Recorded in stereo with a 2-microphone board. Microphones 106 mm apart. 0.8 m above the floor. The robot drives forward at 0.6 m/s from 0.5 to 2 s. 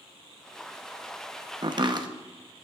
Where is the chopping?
45° right (ahead or behind), 0.8 m; by 2.1 s 40° right (ahead or behind), 0.8 m.